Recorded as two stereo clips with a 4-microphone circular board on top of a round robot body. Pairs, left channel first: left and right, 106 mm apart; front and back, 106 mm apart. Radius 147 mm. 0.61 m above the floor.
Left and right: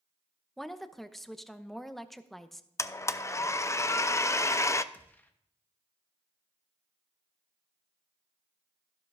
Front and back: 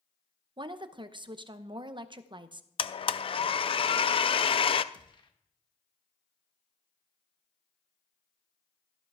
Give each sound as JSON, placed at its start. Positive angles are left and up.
{"t": 0.6, "sound": "a woman speaking", "azimuth_deg": 180, "distance_m": 0.9}
{"t": 2.8, "sound": "a blender", "azimuth_deg": 30, "distance_m": 0.6}
{"t": 4.9, "sound": "a gunshot", "azimuth_deg": 25, "distance_m": 1.2}